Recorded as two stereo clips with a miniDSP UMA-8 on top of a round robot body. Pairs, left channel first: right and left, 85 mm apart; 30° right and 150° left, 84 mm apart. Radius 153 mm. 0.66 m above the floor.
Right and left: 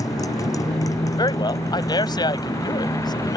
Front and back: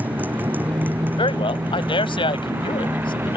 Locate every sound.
0.0 s a motorcycle: 140° right; by 3.4 s 145° right
1.2 s a man speaking: 50° right